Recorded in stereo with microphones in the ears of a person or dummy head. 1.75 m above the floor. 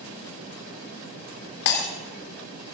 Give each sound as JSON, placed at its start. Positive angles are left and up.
{"t": 1.6, "sound": "breaking glass", "side_deg": 60, "distance_m": 2.5}